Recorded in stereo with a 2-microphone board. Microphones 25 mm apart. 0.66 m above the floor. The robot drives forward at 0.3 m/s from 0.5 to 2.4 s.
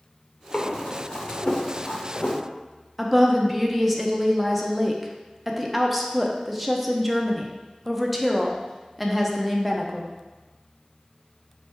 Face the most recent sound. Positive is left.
turn(degrees=-5)  # may be behind; listen again after turning